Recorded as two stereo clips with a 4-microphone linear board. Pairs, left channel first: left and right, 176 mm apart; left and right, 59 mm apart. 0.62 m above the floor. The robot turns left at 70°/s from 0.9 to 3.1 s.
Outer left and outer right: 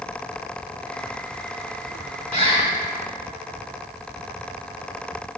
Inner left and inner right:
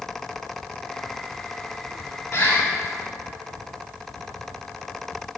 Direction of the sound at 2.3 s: 45° left (ahead or behind).